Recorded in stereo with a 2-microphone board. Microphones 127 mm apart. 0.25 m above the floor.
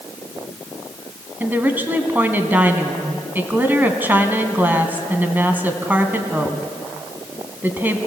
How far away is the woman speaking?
About 1.6 m.